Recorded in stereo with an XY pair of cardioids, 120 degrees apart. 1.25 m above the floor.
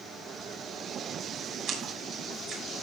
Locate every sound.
1.7 s a splash: 60° right, 6 m